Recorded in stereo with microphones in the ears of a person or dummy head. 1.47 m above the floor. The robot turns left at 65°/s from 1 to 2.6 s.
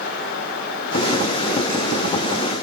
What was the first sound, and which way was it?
Only background noise.